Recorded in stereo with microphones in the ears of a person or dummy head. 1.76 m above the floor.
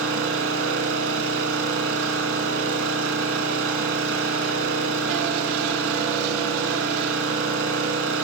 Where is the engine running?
80° right, 8 m.